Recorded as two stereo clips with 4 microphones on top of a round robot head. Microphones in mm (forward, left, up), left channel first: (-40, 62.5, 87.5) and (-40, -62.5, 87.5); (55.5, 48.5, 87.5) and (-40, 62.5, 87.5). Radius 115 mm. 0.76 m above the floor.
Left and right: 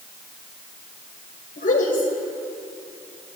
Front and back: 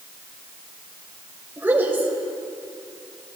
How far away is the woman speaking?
About 3 m.